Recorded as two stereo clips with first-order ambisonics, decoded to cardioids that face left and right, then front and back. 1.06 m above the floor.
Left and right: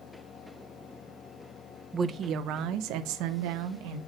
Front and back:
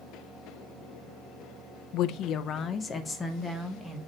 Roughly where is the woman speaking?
Ahead.